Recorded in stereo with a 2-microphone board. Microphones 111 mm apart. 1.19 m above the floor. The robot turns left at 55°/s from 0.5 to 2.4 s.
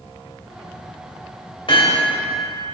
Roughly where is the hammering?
Left.